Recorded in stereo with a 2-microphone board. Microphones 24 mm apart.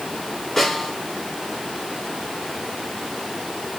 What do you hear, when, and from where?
0.6 s a snare drum: 15° left (ahead or behind), 7 m